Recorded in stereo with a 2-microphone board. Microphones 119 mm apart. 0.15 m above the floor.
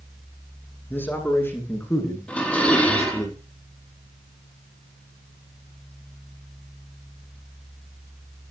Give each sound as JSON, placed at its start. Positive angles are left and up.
{"t": 0.9, "sound": "a man speaking", "side_deg": 15, "distance_m": 9.5}
{"t": 2.3, "sound": "dishes clattering", "side_deg": 10, "distance_m": 4.5}